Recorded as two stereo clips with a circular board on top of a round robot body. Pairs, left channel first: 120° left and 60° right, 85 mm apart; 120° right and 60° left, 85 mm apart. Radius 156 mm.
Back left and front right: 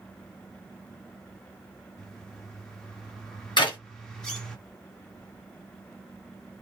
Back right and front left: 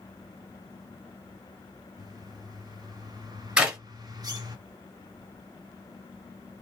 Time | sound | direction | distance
2.0 | a bird | 35° left | 1.3 m
3.6 | a clap | 140° left | 2.0 m